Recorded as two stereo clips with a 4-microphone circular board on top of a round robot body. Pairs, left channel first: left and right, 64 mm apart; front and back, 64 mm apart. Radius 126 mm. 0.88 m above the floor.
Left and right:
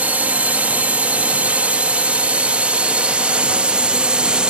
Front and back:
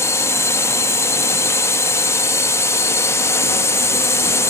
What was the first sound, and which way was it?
A drone, 30° right.